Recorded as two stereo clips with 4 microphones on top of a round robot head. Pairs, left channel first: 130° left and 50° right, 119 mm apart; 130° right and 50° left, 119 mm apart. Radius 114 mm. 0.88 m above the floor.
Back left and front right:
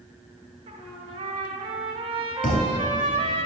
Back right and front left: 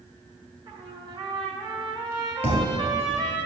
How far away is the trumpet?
About 1.8 m.